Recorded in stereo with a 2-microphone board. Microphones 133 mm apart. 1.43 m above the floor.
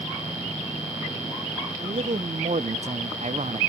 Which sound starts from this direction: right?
A man speaking, at 1.8 s.